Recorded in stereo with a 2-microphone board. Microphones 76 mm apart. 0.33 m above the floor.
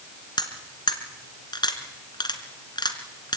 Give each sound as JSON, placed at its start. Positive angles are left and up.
{"t": 0.4, "sound": "cutlery clinking", "side_deg": 70, "distance_m": 2.5}